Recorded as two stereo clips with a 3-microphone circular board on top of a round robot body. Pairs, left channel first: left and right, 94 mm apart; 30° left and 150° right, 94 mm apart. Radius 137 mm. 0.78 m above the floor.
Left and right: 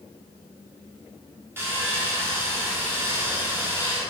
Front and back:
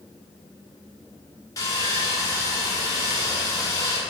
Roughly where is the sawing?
Ahead right.